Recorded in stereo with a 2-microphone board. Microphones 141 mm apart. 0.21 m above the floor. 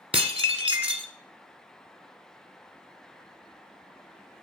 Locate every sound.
0.1 s dishes clattering: 45° right (ahead or behind), 1.2 m